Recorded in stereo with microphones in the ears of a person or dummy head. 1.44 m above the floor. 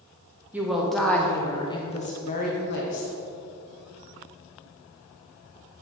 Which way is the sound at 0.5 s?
10° right (ahead or behind).